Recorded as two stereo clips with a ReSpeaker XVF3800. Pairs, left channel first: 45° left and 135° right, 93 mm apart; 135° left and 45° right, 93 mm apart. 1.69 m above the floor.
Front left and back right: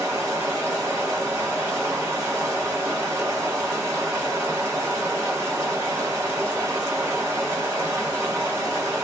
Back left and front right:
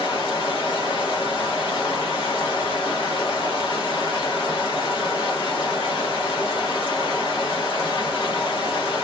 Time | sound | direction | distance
0.0 | running water | 165° left | 1.5 m